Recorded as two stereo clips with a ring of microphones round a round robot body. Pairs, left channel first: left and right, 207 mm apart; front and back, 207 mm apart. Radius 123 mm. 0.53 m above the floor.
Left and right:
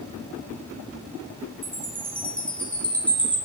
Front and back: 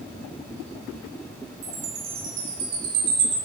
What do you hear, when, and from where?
1.6 s a chime: 175° left, 2.5 m